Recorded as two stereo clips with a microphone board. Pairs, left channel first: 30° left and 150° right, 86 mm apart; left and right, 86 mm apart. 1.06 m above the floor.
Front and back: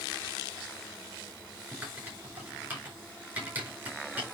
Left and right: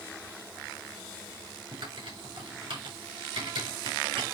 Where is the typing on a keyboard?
80° right, 4 m.